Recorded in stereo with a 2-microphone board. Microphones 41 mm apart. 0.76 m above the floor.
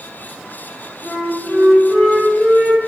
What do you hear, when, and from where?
1.0 s a flute: 35° right (ahead or behind), 1.3 m